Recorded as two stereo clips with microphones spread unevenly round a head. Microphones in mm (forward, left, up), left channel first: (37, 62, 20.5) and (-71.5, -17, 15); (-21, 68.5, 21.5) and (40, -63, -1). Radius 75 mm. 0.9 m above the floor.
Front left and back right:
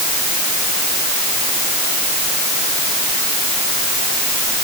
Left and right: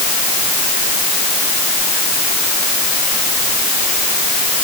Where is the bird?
No bird in this recording.